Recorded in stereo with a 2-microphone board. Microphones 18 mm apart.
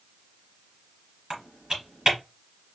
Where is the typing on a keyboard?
40° right (ahead or behind), 1.6 m.